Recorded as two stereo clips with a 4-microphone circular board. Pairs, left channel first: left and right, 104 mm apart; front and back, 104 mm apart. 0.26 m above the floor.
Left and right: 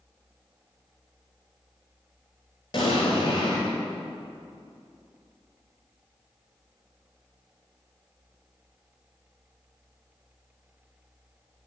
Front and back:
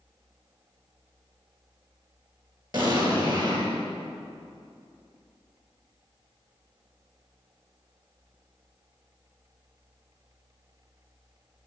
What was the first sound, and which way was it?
An explosion, 130° left.